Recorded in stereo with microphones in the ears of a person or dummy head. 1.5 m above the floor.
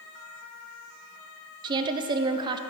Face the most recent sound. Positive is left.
turn(degrees=-30)  # may be behind; listen again after turning